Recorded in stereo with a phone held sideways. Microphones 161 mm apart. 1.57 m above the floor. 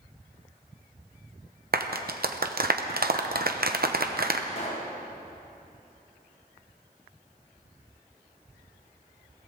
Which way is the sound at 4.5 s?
45° left (ahead or behind).